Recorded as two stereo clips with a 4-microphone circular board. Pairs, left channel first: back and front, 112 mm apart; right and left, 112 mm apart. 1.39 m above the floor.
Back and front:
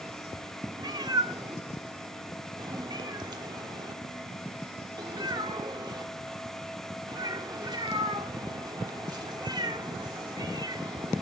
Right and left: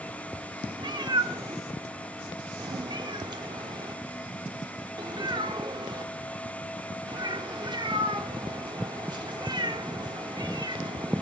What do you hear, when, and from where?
0.8 s a cat meowing: 45° left, 1.6 m